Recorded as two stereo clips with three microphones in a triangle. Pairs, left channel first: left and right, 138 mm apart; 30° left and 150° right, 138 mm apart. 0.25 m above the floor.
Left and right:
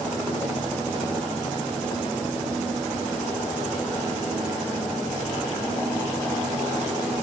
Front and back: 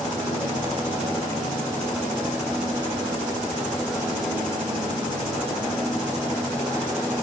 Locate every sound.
Only background noise.